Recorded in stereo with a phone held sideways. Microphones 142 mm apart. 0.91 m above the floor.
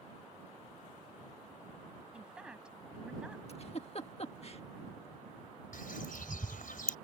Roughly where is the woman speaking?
Centre.